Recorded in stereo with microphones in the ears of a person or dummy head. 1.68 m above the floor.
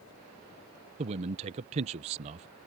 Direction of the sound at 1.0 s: 35° right (ahead or behind).